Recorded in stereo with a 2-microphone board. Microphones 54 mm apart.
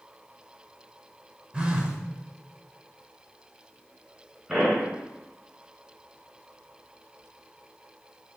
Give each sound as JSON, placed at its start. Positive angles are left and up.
{"t": 1.5, "sound": "a phone buzzing", "side_deg": -20, "distance_m": 0.7}
{"t": 4.5, "sound": "a pop", "side_deg": -10, "distance_m": 2.0}